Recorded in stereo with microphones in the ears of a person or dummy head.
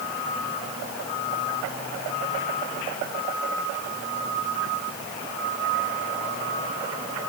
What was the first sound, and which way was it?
Only background noise.